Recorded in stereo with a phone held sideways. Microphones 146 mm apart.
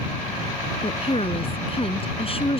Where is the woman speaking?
40° left (ahead or behind).